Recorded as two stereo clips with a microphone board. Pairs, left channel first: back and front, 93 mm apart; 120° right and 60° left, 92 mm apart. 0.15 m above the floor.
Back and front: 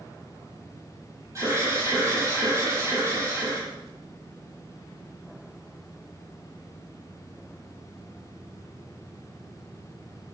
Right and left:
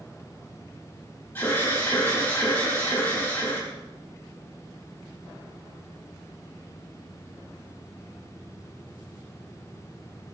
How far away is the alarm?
About 5.5 m.